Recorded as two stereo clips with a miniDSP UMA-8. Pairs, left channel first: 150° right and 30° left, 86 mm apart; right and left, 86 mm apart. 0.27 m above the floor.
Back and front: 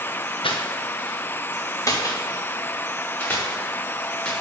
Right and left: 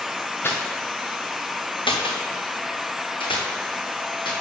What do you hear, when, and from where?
0.4 s footsteps: 155° right, 1.7 m; by 4.3 s 70° right, 5 m